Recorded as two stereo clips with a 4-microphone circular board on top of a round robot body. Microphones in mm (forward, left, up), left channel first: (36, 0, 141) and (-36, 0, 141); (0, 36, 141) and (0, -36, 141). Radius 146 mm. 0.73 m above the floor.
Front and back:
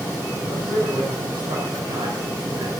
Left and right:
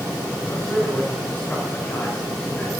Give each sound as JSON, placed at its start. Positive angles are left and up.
{"t": 0.4, "sound": "a man speaking", "azimuth_deg": 160, "distance_m": 4.5}